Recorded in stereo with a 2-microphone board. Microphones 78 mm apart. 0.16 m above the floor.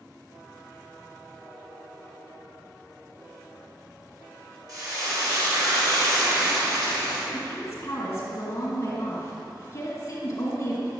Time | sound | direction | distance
4.7 | frying | 50° right (ahead or behind) | 2 m
7.3 | a woman speaking | 40° left (ahead or behind) | 2 m